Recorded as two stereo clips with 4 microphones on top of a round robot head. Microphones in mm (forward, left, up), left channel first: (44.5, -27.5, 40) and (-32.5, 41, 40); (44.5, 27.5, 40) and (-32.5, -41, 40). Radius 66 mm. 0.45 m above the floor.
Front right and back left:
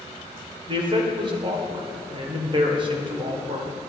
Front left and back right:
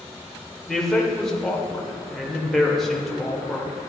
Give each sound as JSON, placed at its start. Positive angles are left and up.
{"t": 0.7, "sound": "a man speaking", "azimuth_deg": 130, "distance_m": 1.9}